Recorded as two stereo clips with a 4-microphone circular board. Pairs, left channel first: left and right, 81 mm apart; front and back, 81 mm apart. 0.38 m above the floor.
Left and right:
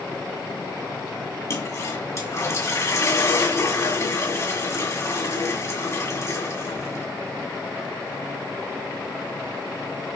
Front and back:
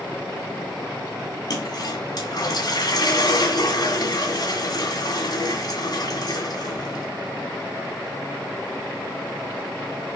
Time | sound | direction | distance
1.5 | a toilet flushing | 40° left | 2 m